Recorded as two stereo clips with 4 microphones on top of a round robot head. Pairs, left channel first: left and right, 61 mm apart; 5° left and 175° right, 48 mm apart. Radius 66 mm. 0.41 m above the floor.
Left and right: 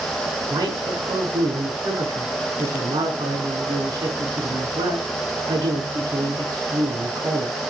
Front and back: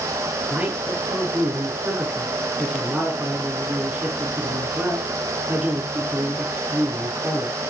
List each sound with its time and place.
0.5 s a man speaking: 110° right, 5 m